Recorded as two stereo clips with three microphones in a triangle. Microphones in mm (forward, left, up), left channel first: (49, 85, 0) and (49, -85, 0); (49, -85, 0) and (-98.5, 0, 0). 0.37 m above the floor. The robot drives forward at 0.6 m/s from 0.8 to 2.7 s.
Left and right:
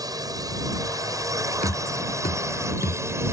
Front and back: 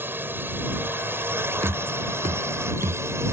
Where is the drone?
140° right; by 3.3 s 150° right.